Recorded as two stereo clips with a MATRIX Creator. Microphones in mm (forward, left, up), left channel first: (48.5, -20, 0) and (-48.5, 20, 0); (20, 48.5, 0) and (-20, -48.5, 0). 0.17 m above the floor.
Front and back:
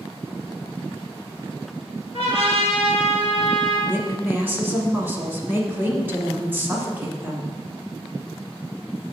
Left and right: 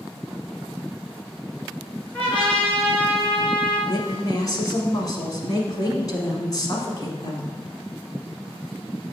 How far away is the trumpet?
About 2.5 m.